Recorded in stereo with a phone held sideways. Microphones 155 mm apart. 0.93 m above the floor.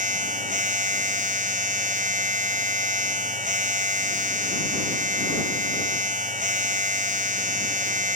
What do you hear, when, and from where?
0.0 s a machine running: 60° right (ahead or behind)